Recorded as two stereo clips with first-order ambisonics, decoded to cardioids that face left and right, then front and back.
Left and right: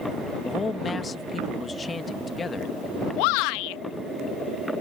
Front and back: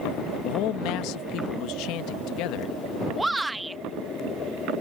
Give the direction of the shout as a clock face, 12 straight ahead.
9 o'clock.